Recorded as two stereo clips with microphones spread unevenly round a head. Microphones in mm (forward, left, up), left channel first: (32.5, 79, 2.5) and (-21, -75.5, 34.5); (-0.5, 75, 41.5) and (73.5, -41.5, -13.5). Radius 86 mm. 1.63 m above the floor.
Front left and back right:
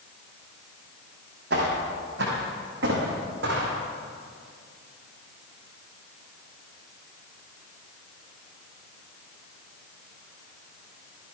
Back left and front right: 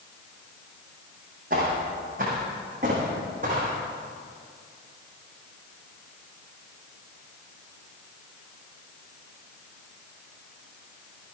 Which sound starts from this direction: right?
Footsteps, at 1.5 s.